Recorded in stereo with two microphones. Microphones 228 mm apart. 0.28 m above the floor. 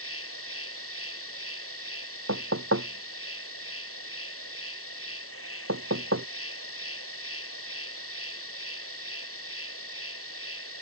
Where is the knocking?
85° right.